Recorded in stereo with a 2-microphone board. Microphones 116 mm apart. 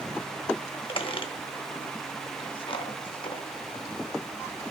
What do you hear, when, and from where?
0.9 s a squeak: 45° left (ahead or behind), 0.6 m